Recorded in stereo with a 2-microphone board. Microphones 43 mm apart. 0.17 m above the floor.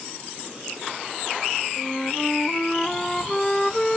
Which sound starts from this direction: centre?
A flute, at 1.8 s.